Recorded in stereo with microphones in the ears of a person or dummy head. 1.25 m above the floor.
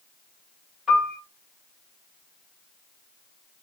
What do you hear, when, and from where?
0.9 s a piano: 5° right (ahead or behind), 1.7 m